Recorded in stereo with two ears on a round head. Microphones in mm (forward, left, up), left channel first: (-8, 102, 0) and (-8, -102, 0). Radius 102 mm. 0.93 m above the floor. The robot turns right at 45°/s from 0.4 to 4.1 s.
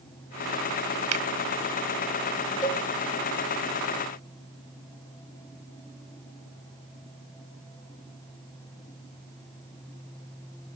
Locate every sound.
1.1 s a finger snap: 80° right, 1.1 m; by 1.2 s 85° right, 1.1 m
2.6 s a cowbell: 20° left (ahead or behind), 1.5 m; by 2.8 s 10° left (ahead or behind), 1.5 m